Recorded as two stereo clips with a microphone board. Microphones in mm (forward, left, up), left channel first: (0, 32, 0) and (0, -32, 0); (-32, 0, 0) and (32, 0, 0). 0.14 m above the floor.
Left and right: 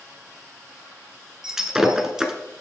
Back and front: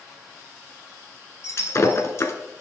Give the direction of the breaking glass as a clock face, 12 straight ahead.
6 o'clock.